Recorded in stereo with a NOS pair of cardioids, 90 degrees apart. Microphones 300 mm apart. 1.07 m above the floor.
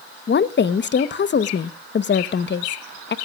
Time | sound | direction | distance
0.3 | a woman speaking | 35° left | 1.0 m